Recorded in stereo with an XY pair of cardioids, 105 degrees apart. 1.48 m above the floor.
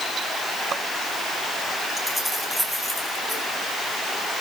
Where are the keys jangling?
5° right, 5.5 m.